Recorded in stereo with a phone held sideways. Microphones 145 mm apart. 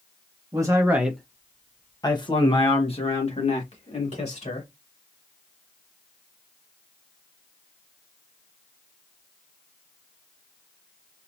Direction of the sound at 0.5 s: 25° right (ahead or behind).